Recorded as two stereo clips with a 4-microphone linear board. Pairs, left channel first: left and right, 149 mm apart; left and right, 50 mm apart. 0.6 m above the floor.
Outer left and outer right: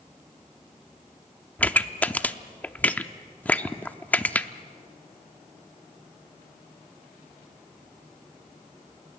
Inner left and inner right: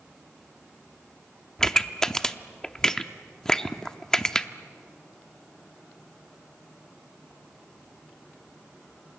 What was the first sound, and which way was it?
A pop, 10° left (ahead or behind).